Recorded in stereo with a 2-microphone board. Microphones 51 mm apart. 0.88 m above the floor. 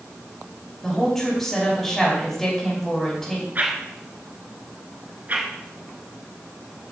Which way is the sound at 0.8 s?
10° left (ahead or behind).